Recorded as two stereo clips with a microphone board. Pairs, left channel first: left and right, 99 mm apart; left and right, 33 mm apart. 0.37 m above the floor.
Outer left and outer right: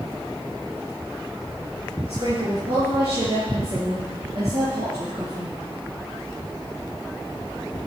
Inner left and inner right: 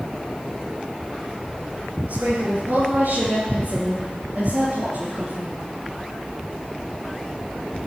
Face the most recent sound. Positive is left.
turn(degrees=-70)  # may be behind; listen again after turning